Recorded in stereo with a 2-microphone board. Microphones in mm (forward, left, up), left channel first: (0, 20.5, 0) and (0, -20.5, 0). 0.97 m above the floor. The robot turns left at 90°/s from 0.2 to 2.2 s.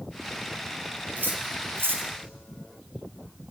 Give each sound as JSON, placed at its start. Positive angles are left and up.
{"t": 1.2, "sound": "cutlery clinking", "side_deg": -45, "distance_m": 3.0}